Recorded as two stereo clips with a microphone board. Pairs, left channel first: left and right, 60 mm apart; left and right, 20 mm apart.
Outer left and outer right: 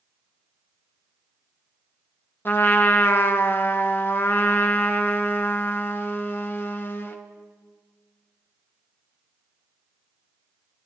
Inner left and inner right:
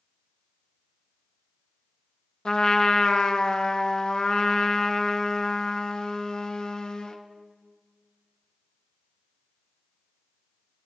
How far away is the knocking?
No knocking in this recording.